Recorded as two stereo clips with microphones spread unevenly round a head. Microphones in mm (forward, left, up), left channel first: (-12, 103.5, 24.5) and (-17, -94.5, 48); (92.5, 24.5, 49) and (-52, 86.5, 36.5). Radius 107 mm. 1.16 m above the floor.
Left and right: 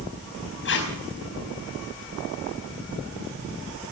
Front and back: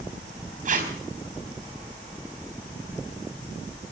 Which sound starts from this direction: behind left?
Tape being pulled, at 0.7 s.